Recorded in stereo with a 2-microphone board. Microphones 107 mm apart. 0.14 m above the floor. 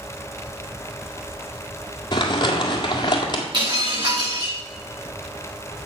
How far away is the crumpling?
About 1.7 m.